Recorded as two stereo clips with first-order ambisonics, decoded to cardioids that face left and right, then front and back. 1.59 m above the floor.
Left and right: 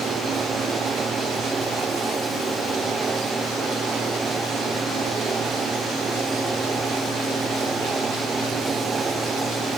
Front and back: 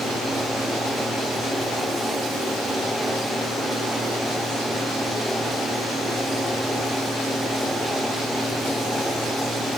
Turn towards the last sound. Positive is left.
No sound to turn to.